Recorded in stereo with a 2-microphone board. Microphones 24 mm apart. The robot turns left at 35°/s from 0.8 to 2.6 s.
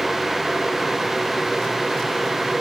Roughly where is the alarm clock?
No alarm clock in this recording.